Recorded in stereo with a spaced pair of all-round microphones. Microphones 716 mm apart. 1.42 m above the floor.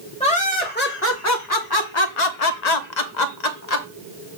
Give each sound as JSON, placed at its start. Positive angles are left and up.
{"t": 0.2, "sound": "laughter", "side_deg": 10, "distance_m": 1.4}